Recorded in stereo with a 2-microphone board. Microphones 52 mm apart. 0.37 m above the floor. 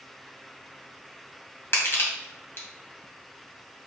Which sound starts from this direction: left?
Crushing, at 1.7 s.